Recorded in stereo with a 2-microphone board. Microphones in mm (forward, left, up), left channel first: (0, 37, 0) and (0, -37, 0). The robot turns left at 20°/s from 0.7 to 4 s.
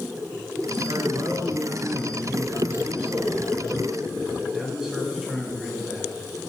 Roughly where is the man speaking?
Right.